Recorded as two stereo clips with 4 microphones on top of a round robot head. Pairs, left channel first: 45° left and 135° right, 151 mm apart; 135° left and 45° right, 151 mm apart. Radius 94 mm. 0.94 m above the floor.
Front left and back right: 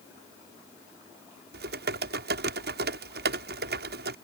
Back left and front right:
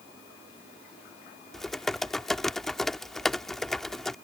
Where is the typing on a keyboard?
140° right.